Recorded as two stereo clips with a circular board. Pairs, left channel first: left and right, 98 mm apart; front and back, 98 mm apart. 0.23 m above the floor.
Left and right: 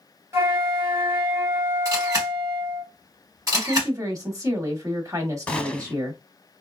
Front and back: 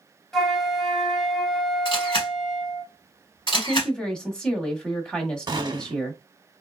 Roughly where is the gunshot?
Behind.